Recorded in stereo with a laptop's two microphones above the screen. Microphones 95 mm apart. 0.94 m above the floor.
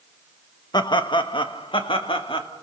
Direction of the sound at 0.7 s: 50° left (ahead or behind).